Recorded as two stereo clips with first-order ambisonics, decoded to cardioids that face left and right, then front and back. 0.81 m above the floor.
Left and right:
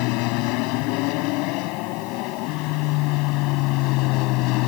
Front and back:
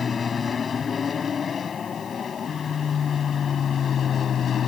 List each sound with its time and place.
0.0 s an aircraft: 70° left; by 4.7 s 65° left